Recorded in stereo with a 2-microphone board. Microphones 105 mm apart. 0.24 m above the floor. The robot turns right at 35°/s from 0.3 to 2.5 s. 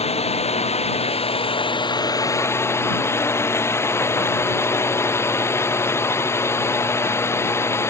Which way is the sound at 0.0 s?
80° left.